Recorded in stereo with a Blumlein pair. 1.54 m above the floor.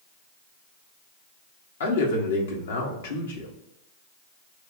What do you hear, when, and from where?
1.8 s a man speaking: 60° left, 1.3 m